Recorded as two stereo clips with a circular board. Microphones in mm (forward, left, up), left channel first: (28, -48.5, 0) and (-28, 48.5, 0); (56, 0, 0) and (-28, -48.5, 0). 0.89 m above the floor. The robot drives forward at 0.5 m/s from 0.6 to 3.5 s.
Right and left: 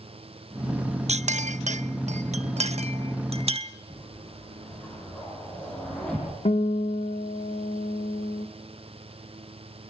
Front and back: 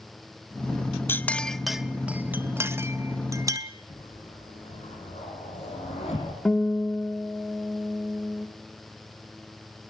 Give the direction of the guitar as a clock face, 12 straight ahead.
2 o'clock.